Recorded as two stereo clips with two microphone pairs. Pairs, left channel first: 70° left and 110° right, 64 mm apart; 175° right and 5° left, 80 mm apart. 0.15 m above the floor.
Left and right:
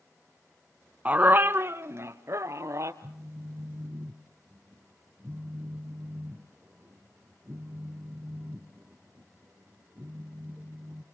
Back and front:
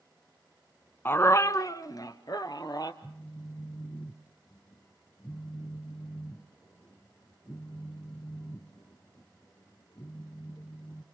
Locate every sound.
1.1 s a dog barking: 150° right, 0.6 m; by 2.9 s 145° right, 1.7 m
3.0 s a phone buzzing: 155° right, 0.9 m